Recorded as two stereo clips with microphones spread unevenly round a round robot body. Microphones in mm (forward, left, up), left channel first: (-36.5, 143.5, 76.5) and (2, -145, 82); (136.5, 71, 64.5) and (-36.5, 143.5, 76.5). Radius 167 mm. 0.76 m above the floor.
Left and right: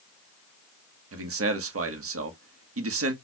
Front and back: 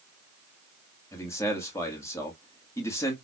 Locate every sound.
1.1 s a man speaking: 90° right, 1.4 m